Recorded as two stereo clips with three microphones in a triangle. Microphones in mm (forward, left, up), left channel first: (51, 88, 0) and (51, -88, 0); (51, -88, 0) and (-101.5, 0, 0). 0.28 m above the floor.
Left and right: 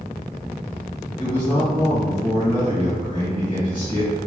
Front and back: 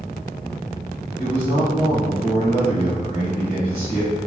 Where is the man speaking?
130° left, 1.9 m.